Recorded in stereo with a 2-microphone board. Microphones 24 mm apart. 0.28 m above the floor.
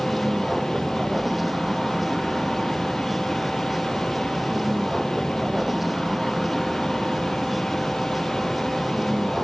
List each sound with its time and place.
0.0 s a vehicle: 5° right (ahead or behind)